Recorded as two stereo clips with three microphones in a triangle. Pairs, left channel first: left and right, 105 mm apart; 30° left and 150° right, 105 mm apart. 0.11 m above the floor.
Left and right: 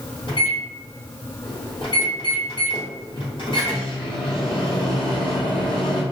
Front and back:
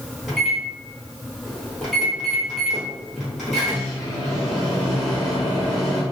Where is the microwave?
120° left, 1.7 m.